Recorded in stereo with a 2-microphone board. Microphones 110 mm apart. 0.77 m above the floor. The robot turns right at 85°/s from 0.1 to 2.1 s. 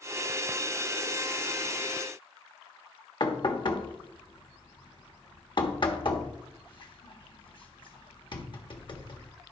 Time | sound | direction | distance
3.2 | knocking | 45° left (ahead or behind) | 1.2 m